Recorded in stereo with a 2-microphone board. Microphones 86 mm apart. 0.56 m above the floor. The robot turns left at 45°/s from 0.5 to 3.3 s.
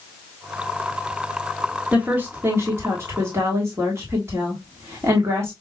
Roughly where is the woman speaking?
Centre.